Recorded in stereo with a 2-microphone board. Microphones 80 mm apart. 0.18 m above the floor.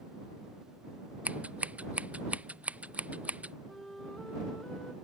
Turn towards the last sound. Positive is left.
turn(degrees=5)  # may be behind; listen again after turning